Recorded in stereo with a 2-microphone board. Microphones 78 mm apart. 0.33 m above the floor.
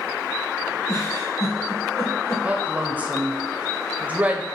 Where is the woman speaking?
20° right (ahead or behind), 1.3 m.